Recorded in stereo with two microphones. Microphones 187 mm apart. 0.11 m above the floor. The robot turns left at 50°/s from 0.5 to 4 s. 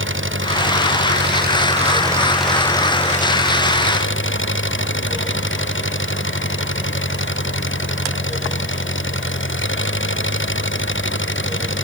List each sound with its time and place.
0.0 s an engine running: 80° right; by 11.8 s 105° left